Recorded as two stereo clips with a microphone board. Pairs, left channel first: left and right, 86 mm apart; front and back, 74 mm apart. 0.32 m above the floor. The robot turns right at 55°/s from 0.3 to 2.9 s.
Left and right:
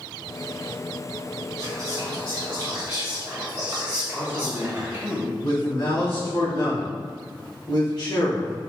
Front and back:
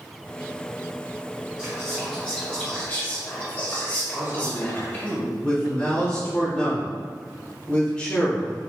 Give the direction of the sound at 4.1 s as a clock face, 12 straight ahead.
5 o'clock.